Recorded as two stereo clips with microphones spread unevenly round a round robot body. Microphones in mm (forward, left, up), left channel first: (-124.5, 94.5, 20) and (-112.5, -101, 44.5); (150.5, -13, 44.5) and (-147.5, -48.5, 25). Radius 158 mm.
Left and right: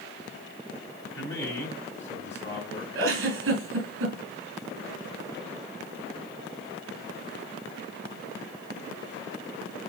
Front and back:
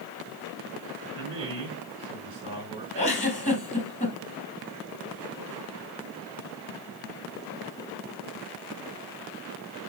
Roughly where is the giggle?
Ahead right.